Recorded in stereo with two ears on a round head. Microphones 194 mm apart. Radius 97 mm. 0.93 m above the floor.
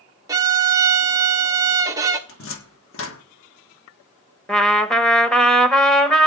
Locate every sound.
0.3 s a violin: 15° right (ahead or behind), 1.3 m
2.3 s a cupboard door: 65° left (ahead or behind), 1.3 m
4.5 s a trumpet: 5° left (ahead or behind), 1.0 m